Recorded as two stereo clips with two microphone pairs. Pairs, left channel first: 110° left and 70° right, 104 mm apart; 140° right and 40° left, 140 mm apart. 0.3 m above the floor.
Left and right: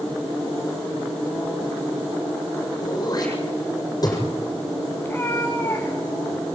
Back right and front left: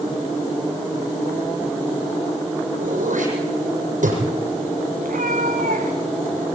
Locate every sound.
2.8 s throat clearing: 60° left, 7 m
5.0 s a cat meowing: 45° left, 5.5 m